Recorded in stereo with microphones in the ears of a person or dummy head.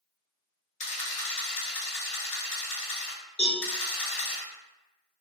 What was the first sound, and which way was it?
A camera shutter, 40° left (ahead or behind).